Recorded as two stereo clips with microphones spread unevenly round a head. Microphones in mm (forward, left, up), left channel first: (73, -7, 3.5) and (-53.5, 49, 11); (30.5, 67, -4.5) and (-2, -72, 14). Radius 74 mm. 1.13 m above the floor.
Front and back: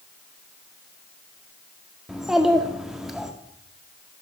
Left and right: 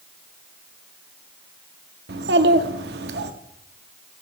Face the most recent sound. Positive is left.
turn(degrees=-115)